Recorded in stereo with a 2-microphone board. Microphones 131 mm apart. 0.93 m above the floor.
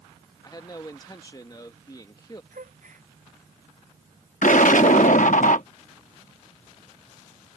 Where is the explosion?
75° left (ahead or behind).